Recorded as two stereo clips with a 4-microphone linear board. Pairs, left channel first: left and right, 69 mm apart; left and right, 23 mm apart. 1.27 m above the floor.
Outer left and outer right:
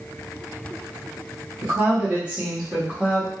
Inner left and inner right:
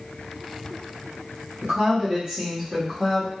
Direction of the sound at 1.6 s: 45° right (ahead or behind).